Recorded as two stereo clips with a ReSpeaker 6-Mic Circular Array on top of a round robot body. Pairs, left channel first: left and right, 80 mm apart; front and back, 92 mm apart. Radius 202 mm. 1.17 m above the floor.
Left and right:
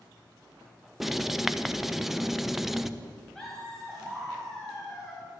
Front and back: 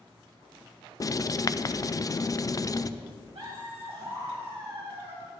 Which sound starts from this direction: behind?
Laughter, at 3.4 s.